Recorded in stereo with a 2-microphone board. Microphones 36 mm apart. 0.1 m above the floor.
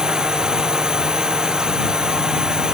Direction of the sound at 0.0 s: 20° right (ahead or behind).